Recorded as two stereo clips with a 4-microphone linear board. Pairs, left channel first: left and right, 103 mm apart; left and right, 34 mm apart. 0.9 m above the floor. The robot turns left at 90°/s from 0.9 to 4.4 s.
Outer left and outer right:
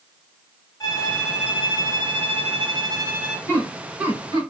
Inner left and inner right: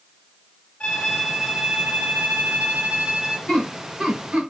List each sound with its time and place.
0.8 s a violin: 40° left, 1.3 m; by 3.4 s straight behind, 1.3 m
3.5 s laughter: 30° left (ahead or behind), 1.6 m; by 4.4 s 45° right (ahead or behind), 1.6 m